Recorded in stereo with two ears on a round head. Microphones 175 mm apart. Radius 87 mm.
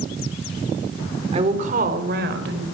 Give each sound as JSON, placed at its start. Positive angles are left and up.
{"t": 1.3, "sound": "a woman speaking", "side_deg": -30, "distance_m": 2.5}